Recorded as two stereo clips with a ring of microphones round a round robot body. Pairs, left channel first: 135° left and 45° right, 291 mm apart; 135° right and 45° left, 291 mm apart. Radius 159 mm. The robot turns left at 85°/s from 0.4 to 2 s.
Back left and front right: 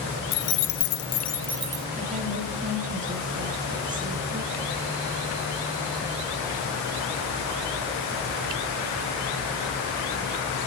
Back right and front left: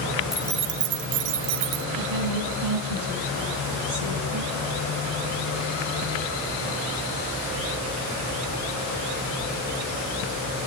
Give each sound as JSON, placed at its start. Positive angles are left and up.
{"t": 0.3, "sound": "keys jangling", "azimuth_deg": 135, "distance_m": 0.7}
{"t": 2.0, "sound": "a woman speaking", "azimuth_deg": 25, "distance_m": 9.0}